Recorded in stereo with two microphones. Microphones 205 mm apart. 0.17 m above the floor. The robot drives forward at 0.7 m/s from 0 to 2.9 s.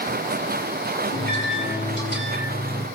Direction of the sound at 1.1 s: 70° left (ahead or behind).